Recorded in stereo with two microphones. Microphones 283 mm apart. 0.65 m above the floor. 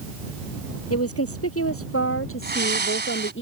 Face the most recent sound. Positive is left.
turn(degrees=-35)  # may be behind; listen again after turning